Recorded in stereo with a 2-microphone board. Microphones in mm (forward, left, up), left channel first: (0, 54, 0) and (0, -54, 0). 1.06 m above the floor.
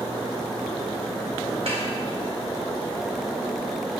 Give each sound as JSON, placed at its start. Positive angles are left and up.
{"t": 1.7, "sound": "a snare drum", "side_deg": -70, "distance_m": 3.5}